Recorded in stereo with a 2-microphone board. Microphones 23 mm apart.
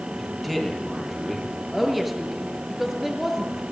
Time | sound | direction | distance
0.2 | a man speaking | 5° right (ahead or behind) | 10 m
1.7 | a woman speaking | 5° right (ahead or behind) | 5 m